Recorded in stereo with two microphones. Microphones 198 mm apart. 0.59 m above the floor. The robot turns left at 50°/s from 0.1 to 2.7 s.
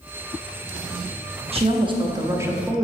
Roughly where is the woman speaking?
Right.